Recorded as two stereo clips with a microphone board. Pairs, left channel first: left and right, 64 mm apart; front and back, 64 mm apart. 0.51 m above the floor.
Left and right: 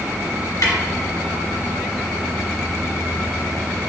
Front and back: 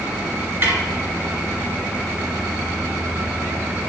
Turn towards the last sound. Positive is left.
turn(degrees=120)